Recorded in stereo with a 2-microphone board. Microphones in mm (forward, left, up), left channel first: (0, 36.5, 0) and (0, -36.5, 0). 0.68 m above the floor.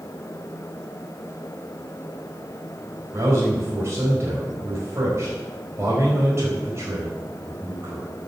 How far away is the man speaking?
About 4 m.